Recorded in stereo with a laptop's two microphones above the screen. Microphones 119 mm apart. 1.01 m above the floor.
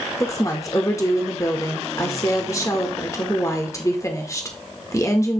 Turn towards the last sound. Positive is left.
turn(degrees=25)  # may be behind; listen again after turning